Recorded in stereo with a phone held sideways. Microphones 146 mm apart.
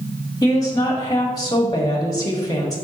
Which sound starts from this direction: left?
A woman speaking, at 0.4 s.